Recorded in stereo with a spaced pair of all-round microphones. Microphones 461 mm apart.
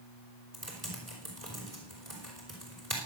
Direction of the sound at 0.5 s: 30° right (ahead or behind).